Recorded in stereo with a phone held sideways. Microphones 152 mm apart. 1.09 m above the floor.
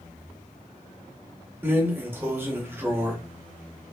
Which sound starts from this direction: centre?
A drawer, at 1.6 s.